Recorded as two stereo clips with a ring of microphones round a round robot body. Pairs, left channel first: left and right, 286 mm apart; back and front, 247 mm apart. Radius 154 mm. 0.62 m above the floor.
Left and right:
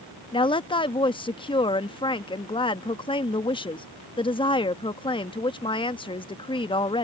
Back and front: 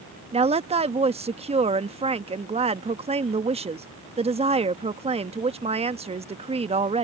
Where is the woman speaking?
35° left.